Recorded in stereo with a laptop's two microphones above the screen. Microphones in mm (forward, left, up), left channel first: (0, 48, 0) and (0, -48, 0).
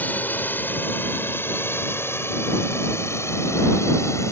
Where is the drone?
20° left (ahead or behind); by 4.3 s 30° left (ahead or behind).